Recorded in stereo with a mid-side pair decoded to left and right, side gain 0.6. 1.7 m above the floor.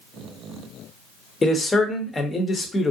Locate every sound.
1.4 s a man speaking: 20° left, 0.8 m